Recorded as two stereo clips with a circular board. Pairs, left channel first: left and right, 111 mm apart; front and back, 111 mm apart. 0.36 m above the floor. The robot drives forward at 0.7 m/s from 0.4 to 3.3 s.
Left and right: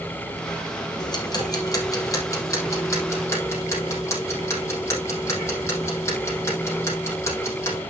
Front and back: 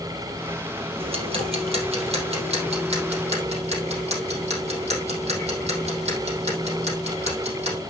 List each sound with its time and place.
1.0 s ticking: 140° left, 3 m; by 7.8 s 155° left, 4.5 m